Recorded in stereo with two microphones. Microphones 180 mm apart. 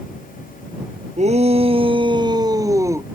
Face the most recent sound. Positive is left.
turn(degrees=-15)  # may be behind; listen again after turning